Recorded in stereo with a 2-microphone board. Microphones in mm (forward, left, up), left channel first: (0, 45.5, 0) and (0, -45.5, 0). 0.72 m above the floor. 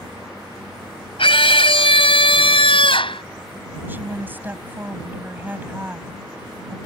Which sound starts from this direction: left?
A scream, at 1.2 s.